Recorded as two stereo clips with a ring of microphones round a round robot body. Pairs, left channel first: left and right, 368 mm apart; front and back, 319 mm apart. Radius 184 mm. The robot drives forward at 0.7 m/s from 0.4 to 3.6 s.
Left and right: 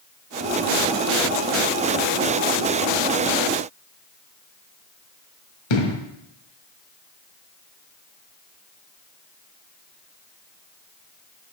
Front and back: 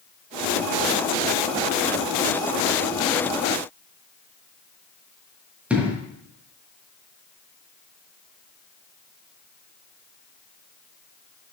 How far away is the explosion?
About 1.5 m.